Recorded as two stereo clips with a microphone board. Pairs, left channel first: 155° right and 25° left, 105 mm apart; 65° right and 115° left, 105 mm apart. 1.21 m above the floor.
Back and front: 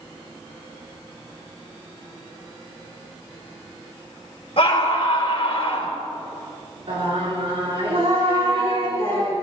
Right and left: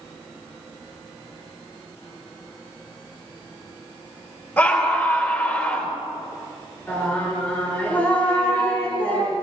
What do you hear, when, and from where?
4.6 s a scream: 135° right, 4 m
6.9 s singing: 5° left, 5 m